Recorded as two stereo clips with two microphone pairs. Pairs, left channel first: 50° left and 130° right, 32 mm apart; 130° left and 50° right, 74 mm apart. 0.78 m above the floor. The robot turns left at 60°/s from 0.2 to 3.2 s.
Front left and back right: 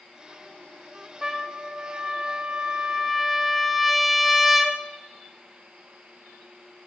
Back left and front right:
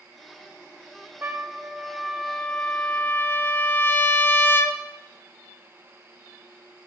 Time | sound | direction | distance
1.2 | a trumpet | 85° right | 0.7 m